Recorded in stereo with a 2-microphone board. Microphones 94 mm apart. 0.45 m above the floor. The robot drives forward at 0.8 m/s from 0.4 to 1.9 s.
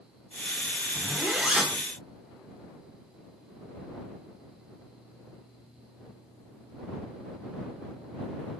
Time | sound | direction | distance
0.9 | a zipper | 15° right (ahead or behind) | 1.0 m